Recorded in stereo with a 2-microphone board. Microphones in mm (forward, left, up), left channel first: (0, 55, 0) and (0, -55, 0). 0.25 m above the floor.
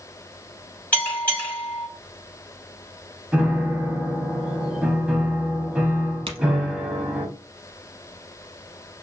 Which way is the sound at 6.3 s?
60° right (ahead or behind).